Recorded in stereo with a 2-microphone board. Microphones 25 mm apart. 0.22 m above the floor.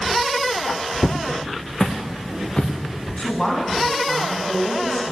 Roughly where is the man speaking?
Left.